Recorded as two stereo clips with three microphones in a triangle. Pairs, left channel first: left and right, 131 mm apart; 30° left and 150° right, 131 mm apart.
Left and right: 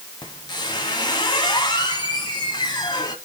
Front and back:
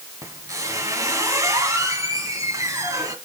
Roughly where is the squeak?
Behind left.